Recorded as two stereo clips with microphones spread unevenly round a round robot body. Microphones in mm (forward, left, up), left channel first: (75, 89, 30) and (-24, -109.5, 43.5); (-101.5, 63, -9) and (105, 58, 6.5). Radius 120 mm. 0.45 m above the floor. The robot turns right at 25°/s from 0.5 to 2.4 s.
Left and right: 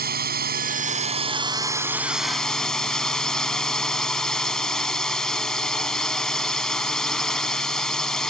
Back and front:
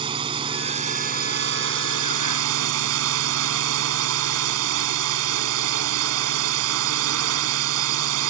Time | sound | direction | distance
0.0 | a drone | 70° right | ?